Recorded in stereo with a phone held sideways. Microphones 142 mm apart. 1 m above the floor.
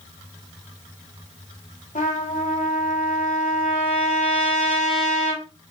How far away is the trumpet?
About 3 m.